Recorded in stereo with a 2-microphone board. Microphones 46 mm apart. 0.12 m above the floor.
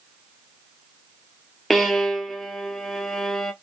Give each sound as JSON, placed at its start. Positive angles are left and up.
{"t": 1.7, "sound": "a violin", "side_deg": 0, "distance_m": 0.8}